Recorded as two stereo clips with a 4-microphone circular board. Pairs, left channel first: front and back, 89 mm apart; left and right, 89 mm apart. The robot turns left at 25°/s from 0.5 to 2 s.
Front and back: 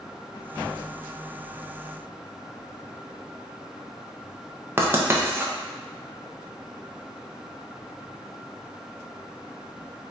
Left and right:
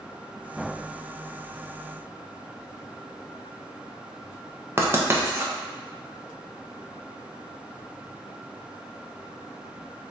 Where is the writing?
135° right, 0.5 m.